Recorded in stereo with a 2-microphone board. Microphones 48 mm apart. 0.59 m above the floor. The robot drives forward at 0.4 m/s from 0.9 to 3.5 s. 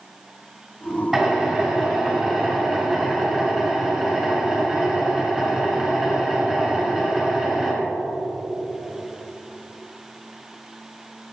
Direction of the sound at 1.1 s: 10° right (ahead or behind).